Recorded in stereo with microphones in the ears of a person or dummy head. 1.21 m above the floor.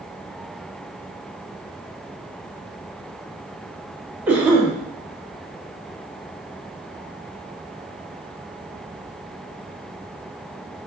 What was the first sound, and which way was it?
A cough, 10° right (ahead or behind).